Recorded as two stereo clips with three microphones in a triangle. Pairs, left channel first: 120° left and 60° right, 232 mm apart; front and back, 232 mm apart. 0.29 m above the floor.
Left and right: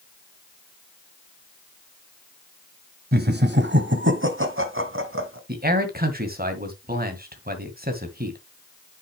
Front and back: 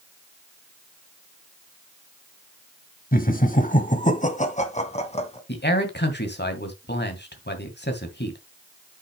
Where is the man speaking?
25° right, 2 m.